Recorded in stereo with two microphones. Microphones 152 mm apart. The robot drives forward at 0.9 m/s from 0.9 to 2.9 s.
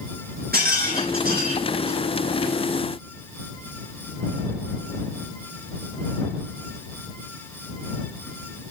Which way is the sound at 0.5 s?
85° right.